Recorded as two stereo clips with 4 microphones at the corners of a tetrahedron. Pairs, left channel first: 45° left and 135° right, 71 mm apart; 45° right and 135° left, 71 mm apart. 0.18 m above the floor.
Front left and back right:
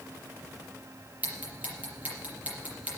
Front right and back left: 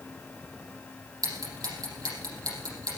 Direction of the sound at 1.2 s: 155° left.